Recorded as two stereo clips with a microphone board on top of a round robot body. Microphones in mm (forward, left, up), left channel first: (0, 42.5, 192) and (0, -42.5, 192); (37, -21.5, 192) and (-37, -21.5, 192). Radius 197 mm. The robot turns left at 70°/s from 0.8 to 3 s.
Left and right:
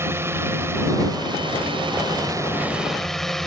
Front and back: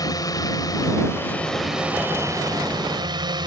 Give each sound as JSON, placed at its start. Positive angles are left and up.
{"t": 0.0, "sound": "a drone", "azimuth_deg": -30}